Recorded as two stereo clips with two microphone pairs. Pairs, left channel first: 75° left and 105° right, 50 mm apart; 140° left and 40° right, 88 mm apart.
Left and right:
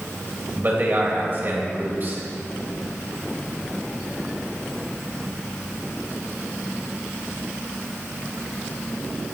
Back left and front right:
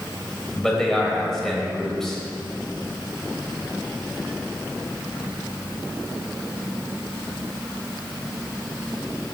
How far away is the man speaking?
About 1.6 m.